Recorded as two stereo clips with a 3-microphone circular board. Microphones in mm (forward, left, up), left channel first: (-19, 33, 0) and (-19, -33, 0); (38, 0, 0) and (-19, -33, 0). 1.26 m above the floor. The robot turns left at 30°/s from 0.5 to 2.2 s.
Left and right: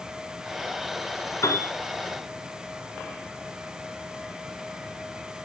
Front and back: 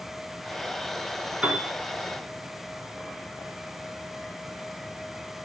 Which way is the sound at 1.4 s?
135° left.